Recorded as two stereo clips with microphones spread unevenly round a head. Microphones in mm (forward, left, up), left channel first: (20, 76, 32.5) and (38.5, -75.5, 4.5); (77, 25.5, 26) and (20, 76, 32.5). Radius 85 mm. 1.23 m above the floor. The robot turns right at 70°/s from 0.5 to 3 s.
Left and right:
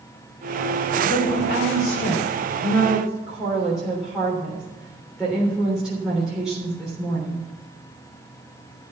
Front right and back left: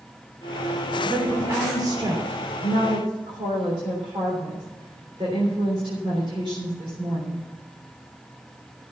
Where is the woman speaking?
50° left, 3.5 m; by 7.4 s 170° right, 3.5 m.